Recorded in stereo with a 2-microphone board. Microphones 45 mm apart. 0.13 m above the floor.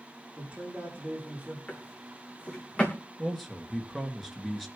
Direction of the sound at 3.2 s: 5° left (ahead or behind).